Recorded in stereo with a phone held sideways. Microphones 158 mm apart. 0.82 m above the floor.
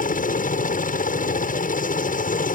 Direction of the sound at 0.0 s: 60° left (ahead or behind).